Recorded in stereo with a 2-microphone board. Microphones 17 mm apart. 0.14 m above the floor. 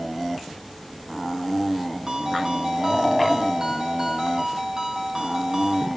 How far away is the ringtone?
About 4 m.